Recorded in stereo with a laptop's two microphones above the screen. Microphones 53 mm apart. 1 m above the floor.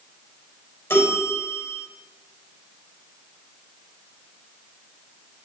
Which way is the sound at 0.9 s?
40° left (ahead or behind).